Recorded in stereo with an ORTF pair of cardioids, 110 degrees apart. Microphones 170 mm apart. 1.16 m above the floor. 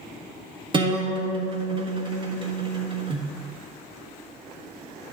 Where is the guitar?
30° right, 1.4 m.